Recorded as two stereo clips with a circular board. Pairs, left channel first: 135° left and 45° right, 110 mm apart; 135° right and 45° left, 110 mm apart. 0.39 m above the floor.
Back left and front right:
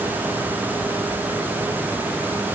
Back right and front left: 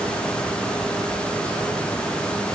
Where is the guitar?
I don't hear a guitar.